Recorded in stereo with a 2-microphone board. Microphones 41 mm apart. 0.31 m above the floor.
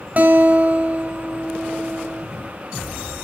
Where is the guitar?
40° right (ahead or behind), 1.9 m.